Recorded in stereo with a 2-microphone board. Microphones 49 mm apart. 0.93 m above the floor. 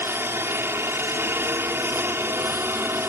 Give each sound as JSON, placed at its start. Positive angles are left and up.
{"t": 0.0, "sound": "a helicopter", "side_deg": -55}